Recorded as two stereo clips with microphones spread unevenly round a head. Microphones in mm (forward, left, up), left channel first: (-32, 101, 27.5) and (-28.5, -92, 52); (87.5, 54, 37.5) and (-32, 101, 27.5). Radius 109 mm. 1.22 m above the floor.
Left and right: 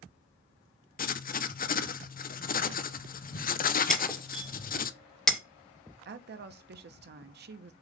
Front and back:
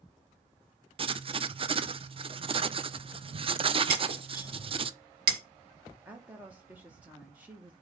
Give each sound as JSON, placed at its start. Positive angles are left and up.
{"t": 1.0, "sound": "writing", "azimuth_deg": 120, "distance_m": 0.7}
{"t": 3.9, "sound": "breaking glass", "azimuth_deg": 180, "distance_m": 1.6}
{"t": 6.0, "sound": "a woman speaking", "azimuth_deg": -120, "distance_m": 1.1}